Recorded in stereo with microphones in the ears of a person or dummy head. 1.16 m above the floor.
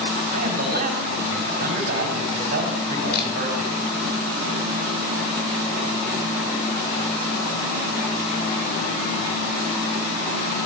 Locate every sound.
0.3 s a man speaking: 45° right (ahead or behind), 5 m
3.1 s a camera shutter: 55° left (ahead or behind), 4.5 m